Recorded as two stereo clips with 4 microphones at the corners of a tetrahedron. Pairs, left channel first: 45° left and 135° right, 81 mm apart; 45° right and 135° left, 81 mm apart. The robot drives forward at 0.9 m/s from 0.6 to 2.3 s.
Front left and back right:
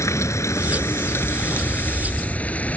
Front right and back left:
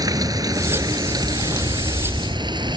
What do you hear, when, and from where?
0.0 s running water: 95° left; by 2.8 s 115° left